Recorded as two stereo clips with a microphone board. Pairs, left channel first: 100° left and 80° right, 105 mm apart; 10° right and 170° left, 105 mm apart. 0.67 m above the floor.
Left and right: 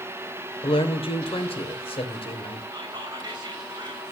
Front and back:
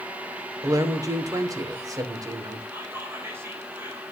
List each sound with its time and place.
0.6 s a man speaking: 115° left, 2.5 m
2.7 s whispering: 125° right, 4 m